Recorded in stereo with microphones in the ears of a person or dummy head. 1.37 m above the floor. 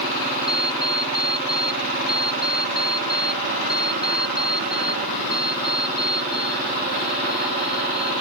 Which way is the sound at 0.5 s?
25° left (ahead or behind).